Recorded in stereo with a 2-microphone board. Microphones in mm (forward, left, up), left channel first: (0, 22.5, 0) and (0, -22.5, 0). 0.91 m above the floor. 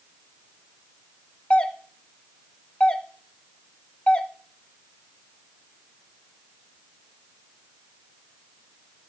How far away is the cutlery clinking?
No cutlery clinking in this recording.